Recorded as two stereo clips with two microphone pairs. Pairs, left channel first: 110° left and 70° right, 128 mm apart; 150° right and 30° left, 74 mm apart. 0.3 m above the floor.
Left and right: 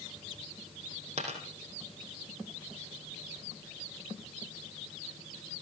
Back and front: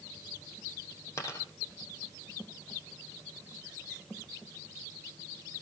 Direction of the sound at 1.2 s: 100° right.